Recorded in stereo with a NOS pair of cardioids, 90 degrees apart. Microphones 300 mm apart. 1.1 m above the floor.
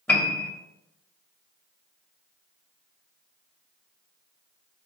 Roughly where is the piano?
Ahead.